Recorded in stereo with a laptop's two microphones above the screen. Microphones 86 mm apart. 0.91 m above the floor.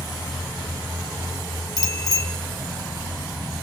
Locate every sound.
1.8 s a bicycle bell: 50° left (ahead or behind), 2.5 m